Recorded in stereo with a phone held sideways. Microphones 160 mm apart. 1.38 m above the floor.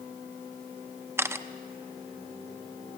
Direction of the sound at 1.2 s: 15° right (ahead or behind).